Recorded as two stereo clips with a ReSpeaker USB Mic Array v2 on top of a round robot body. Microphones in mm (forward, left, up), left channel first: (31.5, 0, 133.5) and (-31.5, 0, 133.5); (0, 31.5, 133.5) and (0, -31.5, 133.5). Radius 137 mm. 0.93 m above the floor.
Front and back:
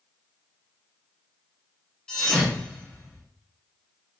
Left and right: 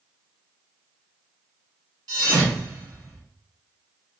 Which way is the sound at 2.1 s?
80° right.